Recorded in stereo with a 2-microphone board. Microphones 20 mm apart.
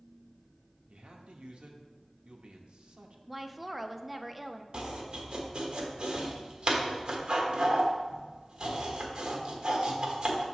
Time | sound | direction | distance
0.9 | a man speaking | 60° right (ahead or behind) | 1.0 m
3.3 | a woman speaking | centre (ahead or behind) | 0.5 m
4.7 | chopping | 45° right (ahead or behind) | 1.1 m